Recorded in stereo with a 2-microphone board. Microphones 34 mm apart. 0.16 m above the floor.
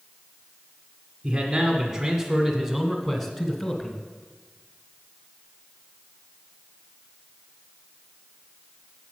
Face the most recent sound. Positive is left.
turn(degrees=25)  # may be behind; listen again after turning